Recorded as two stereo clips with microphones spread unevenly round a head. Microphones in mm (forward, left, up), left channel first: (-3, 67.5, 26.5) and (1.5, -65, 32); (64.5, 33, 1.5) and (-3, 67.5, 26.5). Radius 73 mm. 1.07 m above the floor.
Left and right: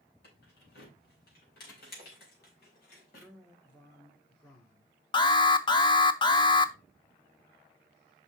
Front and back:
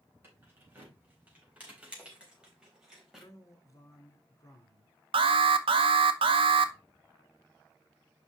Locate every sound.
0.2 s keys jangling: 90° left, 4.5 m; by 3.3 s 70° left, 4 m
3.1 s a man speaking: 25° left, 3 m
5.1 s an alarm: 145° left, 0.8 m